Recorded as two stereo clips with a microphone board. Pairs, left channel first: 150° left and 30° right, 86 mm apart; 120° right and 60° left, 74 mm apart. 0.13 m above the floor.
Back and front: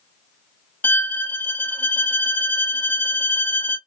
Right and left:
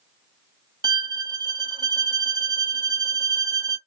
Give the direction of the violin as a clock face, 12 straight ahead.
9 o'clock.